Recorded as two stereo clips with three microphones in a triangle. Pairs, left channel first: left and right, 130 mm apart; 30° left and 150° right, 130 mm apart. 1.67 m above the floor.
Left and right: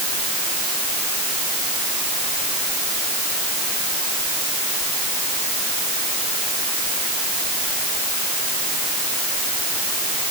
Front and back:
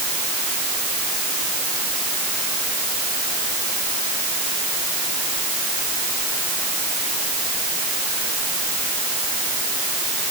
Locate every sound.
Only background noise.